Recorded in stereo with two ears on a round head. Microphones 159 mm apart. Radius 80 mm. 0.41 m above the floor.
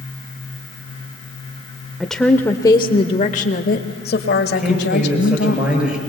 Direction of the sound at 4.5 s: 5° right (ahead or behind).